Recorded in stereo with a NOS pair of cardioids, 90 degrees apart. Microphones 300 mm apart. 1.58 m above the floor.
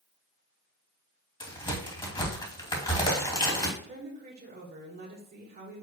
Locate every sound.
1.4 s a crack: 15° left, 2.5 m
3.8 s a woman speaking: 35° right, 2 m